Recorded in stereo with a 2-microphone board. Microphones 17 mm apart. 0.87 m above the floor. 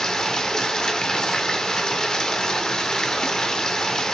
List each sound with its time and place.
0.0 s running water: 45° left (ahead or behind), 0.8 m